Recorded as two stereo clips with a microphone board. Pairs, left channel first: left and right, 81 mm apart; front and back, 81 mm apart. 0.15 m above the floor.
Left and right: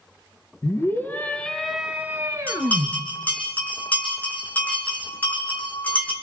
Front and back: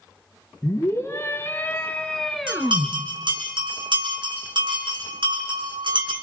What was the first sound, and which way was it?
A scream, 45° left.